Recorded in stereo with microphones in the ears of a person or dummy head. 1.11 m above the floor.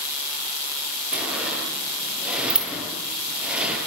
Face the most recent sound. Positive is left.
turn(degrees=-5)  # may be behind; listen again after turning